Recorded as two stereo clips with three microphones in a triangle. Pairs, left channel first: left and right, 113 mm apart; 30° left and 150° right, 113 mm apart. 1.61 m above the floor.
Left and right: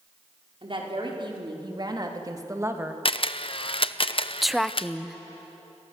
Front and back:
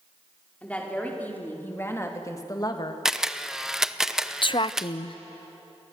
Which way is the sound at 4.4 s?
Straight ahead.